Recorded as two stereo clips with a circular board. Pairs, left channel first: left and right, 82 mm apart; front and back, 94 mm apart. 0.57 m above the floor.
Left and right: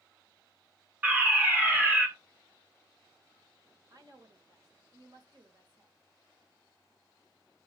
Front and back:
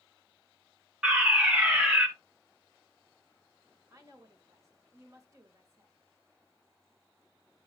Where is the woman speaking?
125° right, 2 m.